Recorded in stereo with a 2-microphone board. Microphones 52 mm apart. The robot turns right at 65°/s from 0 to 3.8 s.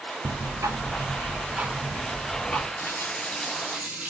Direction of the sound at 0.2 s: 120° right.